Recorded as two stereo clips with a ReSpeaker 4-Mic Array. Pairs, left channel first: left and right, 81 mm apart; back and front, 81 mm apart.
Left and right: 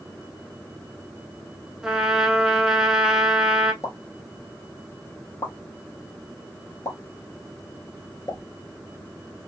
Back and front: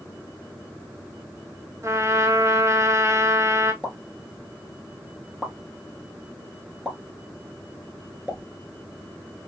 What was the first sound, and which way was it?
A trumpet, 10° right.